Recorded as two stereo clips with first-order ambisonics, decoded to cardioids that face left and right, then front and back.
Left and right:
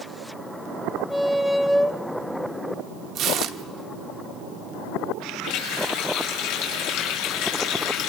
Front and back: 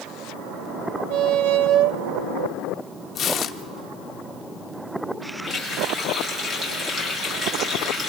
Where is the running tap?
95° left, 6 m.